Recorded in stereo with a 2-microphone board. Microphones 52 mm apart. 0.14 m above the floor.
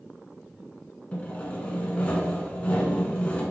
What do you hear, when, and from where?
1.1 s sawing: 25° left (ahead or behind), 0.7 m